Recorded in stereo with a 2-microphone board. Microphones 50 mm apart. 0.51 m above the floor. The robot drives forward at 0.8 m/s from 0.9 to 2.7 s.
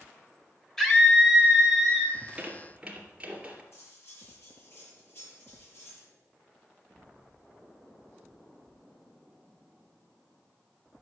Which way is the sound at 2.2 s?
25° right (ahead or behind).